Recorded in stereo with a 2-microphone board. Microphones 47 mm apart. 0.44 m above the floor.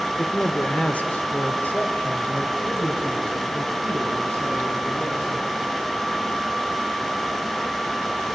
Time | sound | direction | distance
0.2 | a man speaking | 20° left (ahead or behind) | 1.3 m